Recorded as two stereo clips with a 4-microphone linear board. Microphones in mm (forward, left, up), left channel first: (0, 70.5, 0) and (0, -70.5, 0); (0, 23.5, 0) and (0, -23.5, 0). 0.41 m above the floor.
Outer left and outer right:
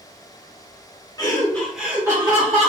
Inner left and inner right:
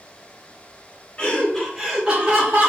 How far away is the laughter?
About 0.9 m.